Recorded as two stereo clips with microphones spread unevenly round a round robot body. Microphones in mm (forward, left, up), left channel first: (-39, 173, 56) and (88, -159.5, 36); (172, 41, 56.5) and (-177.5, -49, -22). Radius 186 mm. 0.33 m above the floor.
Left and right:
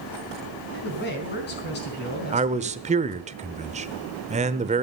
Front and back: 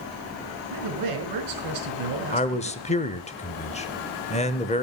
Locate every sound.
0.7 s a man speaking: 175° left, 4.5 m
2.3 s a man speaking: 60° right, 0.9 m